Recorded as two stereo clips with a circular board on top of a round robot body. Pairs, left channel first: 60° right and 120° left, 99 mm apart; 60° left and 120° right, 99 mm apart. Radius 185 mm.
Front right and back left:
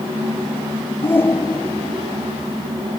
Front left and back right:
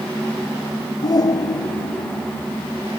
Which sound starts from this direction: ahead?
A shout, at 1.0 s.